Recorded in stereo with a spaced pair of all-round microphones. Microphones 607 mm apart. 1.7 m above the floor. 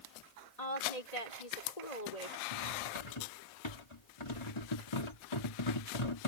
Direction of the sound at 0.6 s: 85° left.